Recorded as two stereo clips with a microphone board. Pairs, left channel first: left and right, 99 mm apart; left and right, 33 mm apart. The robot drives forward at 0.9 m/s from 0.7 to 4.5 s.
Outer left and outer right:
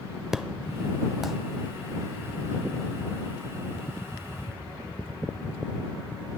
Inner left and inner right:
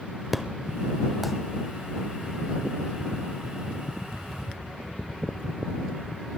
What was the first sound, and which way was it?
An explosion, 5° right (ahead or behind).